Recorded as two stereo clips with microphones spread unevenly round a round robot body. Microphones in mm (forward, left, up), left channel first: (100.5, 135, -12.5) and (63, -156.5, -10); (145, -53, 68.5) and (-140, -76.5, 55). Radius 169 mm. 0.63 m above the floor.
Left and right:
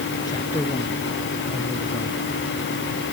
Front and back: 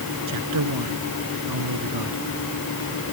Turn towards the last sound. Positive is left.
turn(degrees=160)